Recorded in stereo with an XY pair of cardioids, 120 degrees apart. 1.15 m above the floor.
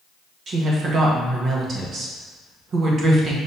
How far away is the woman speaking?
About 1.4 m.